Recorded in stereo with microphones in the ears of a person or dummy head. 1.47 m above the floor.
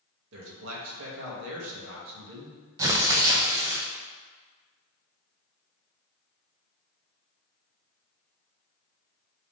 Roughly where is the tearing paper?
Centre.